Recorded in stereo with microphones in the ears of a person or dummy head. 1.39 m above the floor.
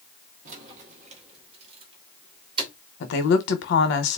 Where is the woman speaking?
65° left (ahead or behind), 1.0 m.